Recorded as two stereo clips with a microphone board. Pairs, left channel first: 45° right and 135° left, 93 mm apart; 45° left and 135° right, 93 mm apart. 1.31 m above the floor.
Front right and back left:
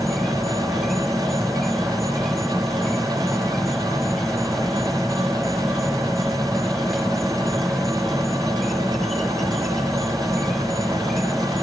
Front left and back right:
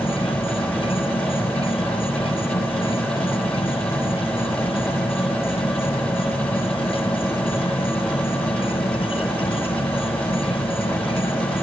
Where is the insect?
45° left.